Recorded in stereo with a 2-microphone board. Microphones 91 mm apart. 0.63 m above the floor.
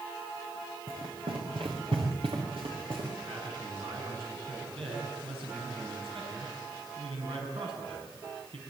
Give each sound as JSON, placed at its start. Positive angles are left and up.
{"t": 0.9, "sound": "running footsteps", "side_deg": -75, "distance_m": 5.0}
{"t": 3.3, "sound": "a man speaking", "side_deg": -80, "distance_m": 6.0}